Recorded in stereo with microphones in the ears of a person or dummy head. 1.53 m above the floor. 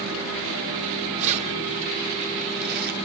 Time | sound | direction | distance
1.2 | keys jangling | 30° right (ahead or behind) | 3.5 m